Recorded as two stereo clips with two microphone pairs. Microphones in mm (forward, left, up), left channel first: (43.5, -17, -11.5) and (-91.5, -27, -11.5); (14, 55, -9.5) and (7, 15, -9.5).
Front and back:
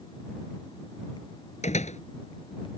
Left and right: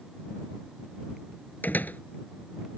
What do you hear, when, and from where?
1.6 s a door slam: 35° left